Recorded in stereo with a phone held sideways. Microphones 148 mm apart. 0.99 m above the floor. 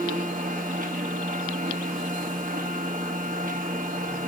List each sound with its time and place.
0.0 s a machine running: 60° right (ahead or behind), 1.6 m